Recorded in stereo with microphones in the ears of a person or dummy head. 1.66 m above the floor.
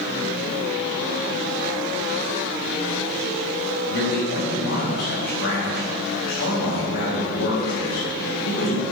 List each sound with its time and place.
3.9 s a man speaking: 70° left (ahead or behind), 3 m